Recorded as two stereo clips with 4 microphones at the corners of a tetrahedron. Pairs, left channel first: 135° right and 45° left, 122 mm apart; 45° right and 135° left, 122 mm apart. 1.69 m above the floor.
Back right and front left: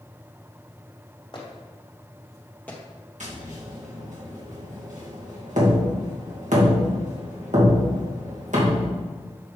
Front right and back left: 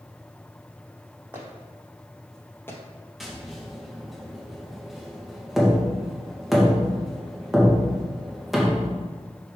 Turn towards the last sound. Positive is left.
turn(degrees=45)